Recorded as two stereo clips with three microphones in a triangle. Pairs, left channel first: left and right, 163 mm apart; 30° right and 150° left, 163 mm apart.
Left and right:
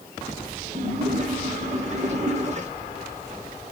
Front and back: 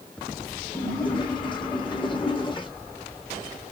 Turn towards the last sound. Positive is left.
turn(degrees=-75)